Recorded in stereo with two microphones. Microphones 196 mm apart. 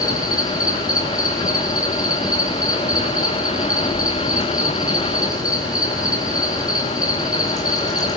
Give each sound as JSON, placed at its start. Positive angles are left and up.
{"t": 0.0, "sound": "an insect", "side_deg": 20, "distance_m": 6.0}